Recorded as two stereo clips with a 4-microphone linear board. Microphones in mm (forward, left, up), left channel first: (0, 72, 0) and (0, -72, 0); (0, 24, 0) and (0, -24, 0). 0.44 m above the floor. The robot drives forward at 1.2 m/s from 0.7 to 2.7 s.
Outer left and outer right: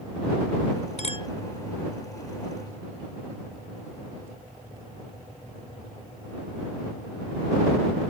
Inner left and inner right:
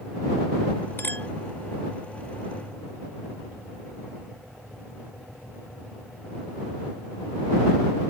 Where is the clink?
50° left (ahead or behind); by 1.3 s 35° left (ahead or behind).